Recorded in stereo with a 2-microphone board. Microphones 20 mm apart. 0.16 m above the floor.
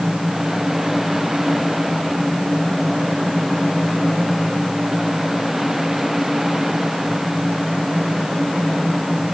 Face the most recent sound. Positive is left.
No sound to turn to.